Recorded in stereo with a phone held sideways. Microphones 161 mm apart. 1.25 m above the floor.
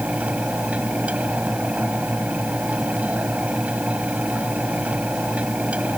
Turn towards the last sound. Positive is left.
turn(degrees=-10)  # may be behind; listen again after turning